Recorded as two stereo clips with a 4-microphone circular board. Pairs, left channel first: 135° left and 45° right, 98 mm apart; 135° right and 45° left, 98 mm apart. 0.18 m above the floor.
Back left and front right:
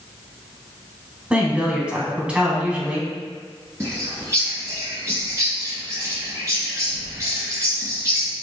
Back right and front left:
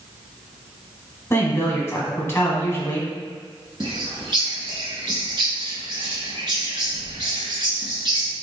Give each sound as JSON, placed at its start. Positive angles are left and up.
{"t": 1.3, "sound": "a woman speaking", "azimuth_deg": -110, "distance_m": 1.1}
{"t": 3.8, "sound": "a bird", "azimuth_deg": 15, "distance_m": 1.4}